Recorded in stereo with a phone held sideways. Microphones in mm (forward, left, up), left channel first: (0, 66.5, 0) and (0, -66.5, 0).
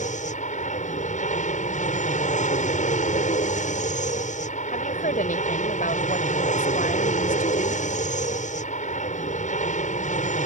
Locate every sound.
0.0 s an aircraft: 60° left (ahead or behind)
4.7 s a woman speaking: 75° left (ahead or behind)